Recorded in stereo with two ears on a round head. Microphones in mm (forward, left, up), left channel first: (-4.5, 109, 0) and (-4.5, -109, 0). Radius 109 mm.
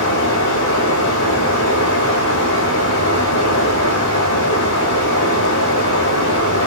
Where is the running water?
55° left (ahead or behind), 3 m.